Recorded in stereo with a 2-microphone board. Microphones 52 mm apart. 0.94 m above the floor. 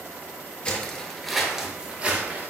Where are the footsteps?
25° left (ahead or behind), 1.0 m; by 2.5 s 40° right (ahead or behind), 1.1 m.